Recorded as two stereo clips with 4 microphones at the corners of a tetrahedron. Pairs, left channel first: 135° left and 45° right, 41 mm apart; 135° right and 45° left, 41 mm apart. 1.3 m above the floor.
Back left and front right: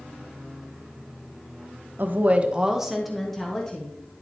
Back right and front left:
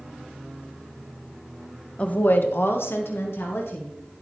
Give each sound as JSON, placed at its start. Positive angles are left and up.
{"t": 2.0, "sound": "a woman speaking", "azimuth_deg": -80, "distance_m": 0.8}